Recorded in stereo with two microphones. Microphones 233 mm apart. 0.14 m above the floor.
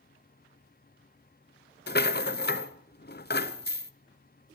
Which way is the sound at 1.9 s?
40° left (ahead or behind).